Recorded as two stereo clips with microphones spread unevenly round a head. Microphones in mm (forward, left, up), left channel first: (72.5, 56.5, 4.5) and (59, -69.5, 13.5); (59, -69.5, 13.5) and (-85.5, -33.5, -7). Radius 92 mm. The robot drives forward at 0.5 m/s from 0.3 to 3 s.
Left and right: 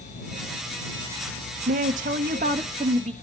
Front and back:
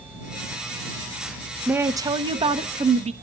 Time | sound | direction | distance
1.7 | a woman speaking | 115° right | 0.6 m